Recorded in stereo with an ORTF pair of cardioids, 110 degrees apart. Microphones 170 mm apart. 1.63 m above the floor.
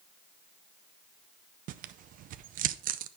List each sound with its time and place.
1.7 s tearing paper: 60° right, 0.5 m